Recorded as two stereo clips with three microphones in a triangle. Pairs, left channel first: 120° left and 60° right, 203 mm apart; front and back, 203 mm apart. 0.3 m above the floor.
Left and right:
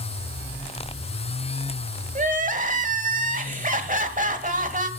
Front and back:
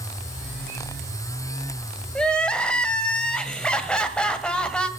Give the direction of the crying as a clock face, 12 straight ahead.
3 o'clock.